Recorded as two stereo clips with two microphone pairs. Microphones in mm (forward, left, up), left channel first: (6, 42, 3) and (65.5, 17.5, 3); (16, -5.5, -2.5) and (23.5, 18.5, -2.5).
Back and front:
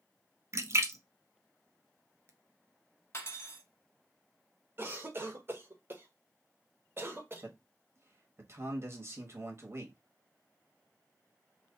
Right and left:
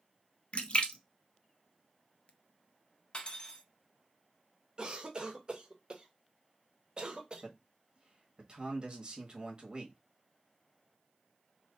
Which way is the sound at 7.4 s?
25° left.